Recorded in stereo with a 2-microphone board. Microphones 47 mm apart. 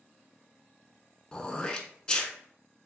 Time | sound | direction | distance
1.3 | throat clearing | 20° left (ahead or behind) | 0.5 m